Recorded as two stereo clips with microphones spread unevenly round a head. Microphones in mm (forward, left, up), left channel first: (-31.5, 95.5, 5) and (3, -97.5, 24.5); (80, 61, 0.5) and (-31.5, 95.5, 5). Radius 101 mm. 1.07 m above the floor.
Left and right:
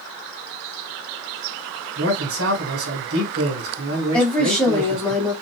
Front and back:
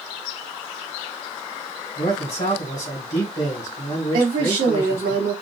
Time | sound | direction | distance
2.0 | a man speaking | 65° right | 2 m
4.1 | a woman speaking | 175° right | 2 m